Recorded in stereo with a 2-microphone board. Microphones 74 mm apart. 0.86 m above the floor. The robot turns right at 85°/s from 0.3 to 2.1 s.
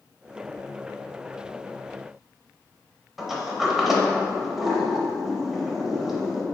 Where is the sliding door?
5° right (ahead or behind), 0.6 m.